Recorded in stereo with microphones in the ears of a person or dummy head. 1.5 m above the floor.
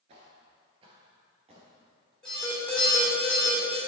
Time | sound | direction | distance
0.1 | footsteps | 30° right (ahead or behind) | 1.6 m
2.2 | an alarm | 5° left (ahead or behind) | 2.5 m